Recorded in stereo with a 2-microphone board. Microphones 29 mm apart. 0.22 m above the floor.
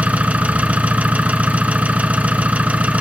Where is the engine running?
60° right (ahead or behind), 1.0 m.